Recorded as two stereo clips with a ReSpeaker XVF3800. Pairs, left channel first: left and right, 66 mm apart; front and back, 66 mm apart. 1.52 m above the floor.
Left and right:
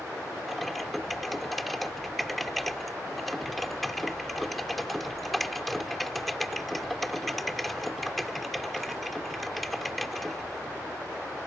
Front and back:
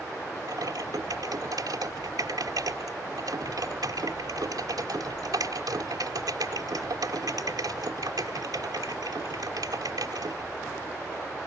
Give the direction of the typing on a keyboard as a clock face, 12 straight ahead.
6 o'clock.